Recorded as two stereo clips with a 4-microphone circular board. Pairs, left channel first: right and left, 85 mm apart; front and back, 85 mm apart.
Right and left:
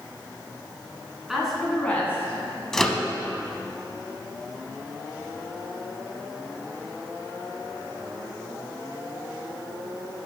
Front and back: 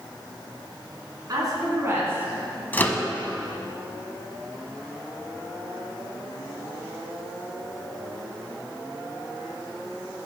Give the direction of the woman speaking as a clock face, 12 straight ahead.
6 o'clock.